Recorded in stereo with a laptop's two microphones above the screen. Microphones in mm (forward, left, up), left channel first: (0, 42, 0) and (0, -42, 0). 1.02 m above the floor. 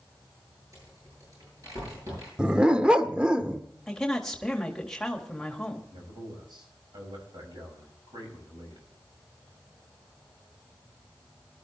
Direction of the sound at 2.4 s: 10° right (ahead or behind).